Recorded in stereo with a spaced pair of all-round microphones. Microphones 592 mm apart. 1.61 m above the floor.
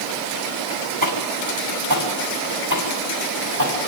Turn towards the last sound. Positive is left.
turn(degrees=-40)  # may be behind; listen again after turning